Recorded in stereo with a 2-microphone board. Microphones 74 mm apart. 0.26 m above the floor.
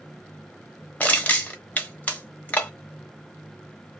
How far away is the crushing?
About 0.9 m.